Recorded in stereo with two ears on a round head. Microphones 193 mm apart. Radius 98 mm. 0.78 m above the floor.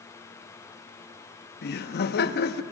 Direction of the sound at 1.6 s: 50° left (ahead or behind).